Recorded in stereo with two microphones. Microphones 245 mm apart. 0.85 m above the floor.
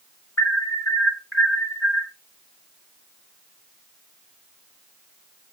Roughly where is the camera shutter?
I don't hear a camera shutter.